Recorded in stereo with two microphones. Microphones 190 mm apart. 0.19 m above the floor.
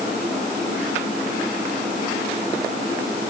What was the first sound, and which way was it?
Only background noise.